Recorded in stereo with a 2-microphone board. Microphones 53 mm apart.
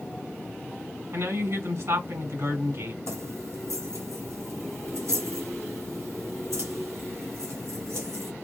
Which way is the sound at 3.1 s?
70° right (ahead or behind).